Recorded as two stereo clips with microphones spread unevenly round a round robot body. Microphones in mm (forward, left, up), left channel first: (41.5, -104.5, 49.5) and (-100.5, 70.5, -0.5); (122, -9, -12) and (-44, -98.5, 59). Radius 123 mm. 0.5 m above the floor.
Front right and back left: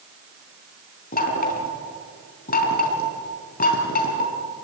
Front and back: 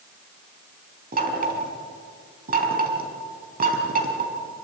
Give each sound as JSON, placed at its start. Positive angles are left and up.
{"t": 1.1, "sound": "knocking", "azimuth_deg": -105, "distance_m": 4.5}